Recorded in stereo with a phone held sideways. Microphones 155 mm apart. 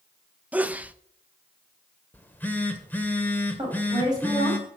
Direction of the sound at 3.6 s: 25° right (ahead or behind).